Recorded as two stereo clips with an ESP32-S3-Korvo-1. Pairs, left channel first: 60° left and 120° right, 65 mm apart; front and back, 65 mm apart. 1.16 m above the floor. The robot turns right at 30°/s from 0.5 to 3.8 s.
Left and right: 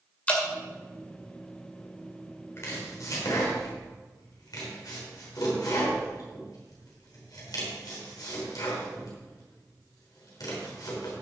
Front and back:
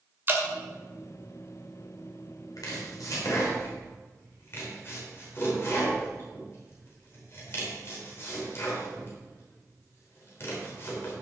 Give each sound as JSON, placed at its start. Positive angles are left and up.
{"t": 0.3, "sound": "dripping", "azimuth_deg": 130, "distance_m": 1.9}
{"t": 2.6, "sound": "chopping", "azimuth_deg": 15, "distance_m": 3.5}